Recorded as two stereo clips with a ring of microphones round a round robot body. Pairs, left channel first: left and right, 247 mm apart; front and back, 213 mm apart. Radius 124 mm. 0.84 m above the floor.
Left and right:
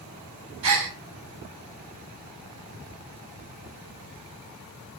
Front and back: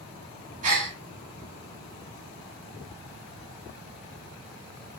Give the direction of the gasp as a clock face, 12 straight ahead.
4 o'clock.